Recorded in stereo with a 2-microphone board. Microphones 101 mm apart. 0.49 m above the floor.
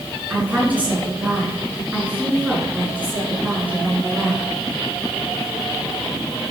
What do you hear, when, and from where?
0.3 s a woman speaking: 15° right (ahead or behind), 6 m